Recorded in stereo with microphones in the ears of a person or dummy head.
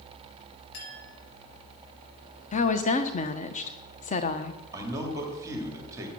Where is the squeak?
I don't hear a squeak.